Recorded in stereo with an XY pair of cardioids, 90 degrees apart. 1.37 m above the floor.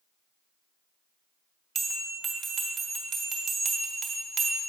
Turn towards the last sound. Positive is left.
turn(degrees=-65)